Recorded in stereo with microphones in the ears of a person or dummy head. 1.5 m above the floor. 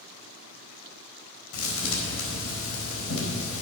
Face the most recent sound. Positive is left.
turn(degrees=80)